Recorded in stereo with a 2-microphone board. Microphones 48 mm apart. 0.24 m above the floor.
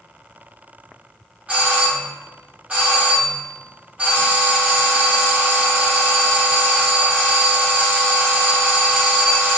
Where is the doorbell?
25° right (ahead or behind), 1.5 m.